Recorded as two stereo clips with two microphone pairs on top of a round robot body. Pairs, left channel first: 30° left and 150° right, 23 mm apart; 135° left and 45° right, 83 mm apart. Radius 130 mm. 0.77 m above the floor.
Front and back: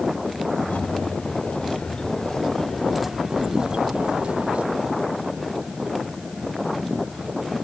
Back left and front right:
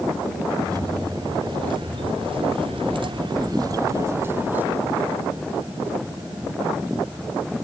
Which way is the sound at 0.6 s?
5° right.